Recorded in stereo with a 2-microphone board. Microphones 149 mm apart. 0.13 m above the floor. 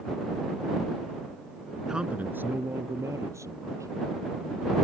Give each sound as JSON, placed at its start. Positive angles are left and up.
{"t": 1.9, "sound": "a man speaking", "side_deg": -5}